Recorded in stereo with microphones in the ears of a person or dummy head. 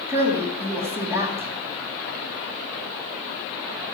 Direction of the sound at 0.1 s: 15° right (ahead or behind).